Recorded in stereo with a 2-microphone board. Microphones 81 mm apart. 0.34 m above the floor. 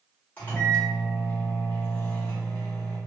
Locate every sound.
0.4 s a microwave: 20° left (ahead or behind), 1.1 m